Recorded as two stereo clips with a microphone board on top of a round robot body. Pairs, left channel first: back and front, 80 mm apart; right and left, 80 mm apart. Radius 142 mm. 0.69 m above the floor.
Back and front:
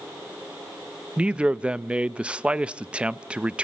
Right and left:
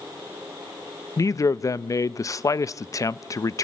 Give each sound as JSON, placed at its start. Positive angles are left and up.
{"t": 1.2, "sound": "a man speaking", "azimuth_deg": -70, "distance_m": 0.6}